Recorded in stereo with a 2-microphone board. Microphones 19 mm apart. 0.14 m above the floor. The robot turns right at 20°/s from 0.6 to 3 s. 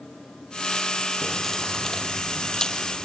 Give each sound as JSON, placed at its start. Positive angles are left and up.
{"t": 1.2, "sound": "keys jangling", "azimuth_deg": 15, "distance_m": 3.5}